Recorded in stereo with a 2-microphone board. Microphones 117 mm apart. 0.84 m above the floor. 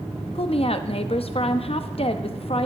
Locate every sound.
0.3 s a woman speaking: 55° left (ahead or behind), 0.7 m